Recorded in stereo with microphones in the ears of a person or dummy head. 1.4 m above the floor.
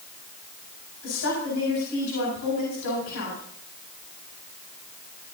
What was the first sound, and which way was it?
A woman speaking, 80° left.